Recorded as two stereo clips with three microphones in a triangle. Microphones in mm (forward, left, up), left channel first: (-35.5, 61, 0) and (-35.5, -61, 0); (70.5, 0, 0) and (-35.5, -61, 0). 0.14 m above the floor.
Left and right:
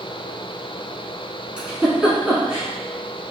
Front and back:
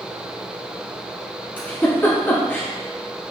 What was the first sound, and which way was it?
A giggle, 15° right.